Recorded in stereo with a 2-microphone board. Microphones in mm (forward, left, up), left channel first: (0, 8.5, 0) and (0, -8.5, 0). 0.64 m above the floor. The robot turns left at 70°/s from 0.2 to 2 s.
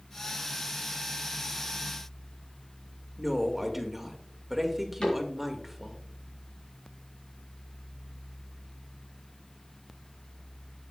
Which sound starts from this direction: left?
A cupboard door, at 5.0 s.